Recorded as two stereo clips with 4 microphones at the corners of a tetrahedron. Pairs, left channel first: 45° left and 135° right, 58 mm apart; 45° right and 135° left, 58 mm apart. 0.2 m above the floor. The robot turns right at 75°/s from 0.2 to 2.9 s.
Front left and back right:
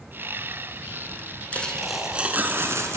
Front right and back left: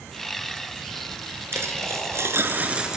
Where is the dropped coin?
105° left, 1.2 m; by 3.0 s 150° right, 1.2 m.